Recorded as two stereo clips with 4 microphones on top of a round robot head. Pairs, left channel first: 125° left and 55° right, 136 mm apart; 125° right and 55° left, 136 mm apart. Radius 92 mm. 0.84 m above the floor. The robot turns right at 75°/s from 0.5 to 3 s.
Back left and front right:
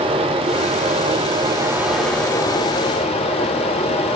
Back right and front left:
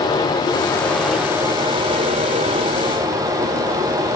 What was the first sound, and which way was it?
Running water, 80° right.